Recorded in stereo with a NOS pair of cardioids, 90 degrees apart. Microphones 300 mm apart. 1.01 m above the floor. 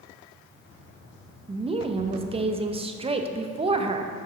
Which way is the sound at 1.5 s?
20° right.